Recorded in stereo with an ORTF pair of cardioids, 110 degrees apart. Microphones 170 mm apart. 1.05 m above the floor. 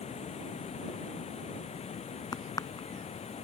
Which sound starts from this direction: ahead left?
Running water, at 0.0 s.